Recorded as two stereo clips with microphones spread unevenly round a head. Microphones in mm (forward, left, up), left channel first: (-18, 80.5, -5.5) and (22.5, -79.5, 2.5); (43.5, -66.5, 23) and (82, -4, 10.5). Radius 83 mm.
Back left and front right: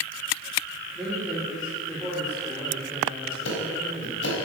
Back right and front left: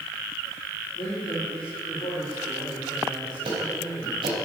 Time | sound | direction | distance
0.9 | a man speaking | 165° right | 3.5 m
3.5 | ticking | 90° left | 4 m